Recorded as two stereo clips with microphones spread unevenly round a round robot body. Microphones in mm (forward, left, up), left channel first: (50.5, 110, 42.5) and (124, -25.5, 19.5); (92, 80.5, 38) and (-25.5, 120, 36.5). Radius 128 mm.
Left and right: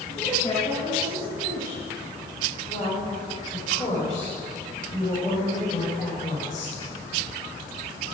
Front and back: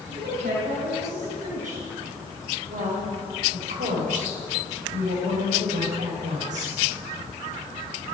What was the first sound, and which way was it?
A woman speaking, 175° right.